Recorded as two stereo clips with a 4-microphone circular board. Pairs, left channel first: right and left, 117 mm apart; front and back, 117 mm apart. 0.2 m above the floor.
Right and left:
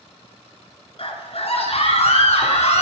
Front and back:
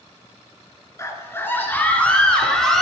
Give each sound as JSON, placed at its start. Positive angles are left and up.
{"t": 1.0, "sound": "a scream", "azimuth_deg": -65, "distance_m": 3.0}